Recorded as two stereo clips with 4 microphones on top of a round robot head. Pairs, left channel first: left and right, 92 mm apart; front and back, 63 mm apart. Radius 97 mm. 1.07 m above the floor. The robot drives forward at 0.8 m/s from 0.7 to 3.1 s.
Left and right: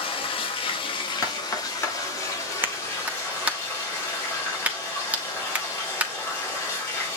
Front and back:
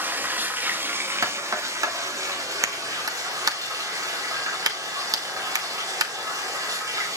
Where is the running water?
125° left, 1.3 m; by 7.2 s 155° left, 3 m.